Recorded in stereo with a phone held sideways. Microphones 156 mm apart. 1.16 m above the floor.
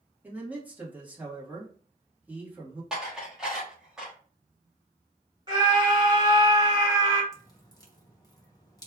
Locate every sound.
0.2 s a man speaking: 10° right (ahead or behind), 1.5 m
2.9 s dishes clattering: 5° right (ahead or behind), 1.3 m
5.5 s a scream: 25° right (ahead or behind), 2 m
7.3 s dripping: 25° left (ahead or behind), 0.9 m